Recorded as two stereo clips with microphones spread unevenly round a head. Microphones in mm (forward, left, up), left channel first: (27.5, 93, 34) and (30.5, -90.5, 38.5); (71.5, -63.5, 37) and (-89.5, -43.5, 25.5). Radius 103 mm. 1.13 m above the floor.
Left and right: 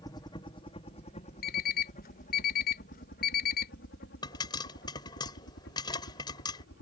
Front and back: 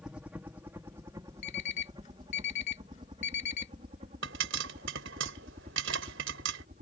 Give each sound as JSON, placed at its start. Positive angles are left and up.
{"t": 0.0, "sound": "a helicopter", "azimuth_deg": 110}
{"t": 1.4, "sound": "an alarm clock", "azimuth_deg": 50}
{"t": 4.2, "sound": "a pop", "azimuth_deg": 160}